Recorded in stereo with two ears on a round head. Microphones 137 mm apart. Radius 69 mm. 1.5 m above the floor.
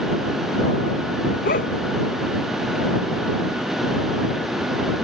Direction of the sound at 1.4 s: 55° left (ahead or behind).